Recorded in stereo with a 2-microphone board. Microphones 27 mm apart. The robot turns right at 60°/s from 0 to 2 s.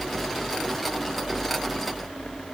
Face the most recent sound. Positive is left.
No sound to turn to.